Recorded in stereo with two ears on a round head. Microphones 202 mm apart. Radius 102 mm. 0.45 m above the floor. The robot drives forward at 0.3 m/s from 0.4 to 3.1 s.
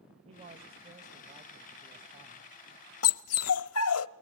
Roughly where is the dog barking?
Left.